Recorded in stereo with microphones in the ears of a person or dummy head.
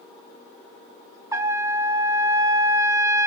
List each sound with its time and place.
1.3 s a trumpet: 15° right (ahead or behind), 1.1 m